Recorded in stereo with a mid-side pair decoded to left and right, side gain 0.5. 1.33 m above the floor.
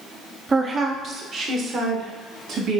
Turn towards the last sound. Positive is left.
turn(degrees=-60)